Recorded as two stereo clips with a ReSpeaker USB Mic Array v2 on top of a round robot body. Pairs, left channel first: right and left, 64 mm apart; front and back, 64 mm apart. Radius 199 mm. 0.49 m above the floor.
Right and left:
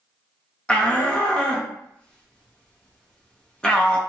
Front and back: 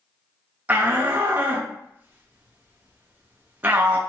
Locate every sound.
0.7 s a shout: 150° right, 0.9 m